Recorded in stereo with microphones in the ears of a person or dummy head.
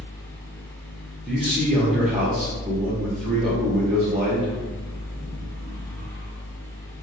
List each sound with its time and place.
0.0 s a fan: 10° left (ahead or behind), 0.8 m
1.3 s a man speaking: centre (ahead or behind), 1.0 m